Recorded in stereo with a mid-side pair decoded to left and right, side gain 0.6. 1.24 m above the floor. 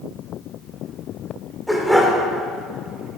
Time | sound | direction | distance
1.7 | a dog barking | straight ahead | 1.8 m